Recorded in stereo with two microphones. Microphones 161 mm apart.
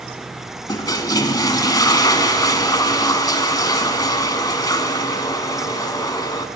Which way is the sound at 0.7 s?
25° left (ahead or behind).